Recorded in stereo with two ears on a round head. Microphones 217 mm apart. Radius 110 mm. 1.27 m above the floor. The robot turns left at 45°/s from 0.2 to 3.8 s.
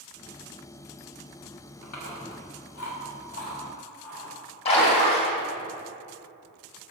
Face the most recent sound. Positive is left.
turn(degrees=25)  # may be behind; listen again after turning